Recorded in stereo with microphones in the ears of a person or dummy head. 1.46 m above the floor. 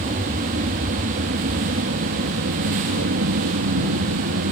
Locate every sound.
0.0 s an aircraft: 40° right (ahead or behind); by 4.5 s 65° right (ahead or behind)